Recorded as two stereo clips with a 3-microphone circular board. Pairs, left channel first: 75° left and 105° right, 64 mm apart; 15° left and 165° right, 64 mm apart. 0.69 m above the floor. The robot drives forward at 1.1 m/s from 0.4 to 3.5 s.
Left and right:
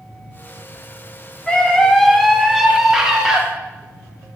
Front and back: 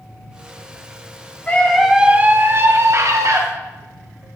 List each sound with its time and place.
1.5 s a scream: 15° left, 0.9 m; by 3.4 s 175° left, 2.0 m